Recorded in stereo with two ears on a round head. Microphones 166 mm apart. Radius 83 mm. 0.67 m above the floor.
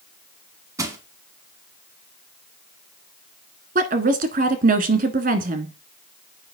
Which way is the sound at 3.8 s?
45° right (ahead or behind).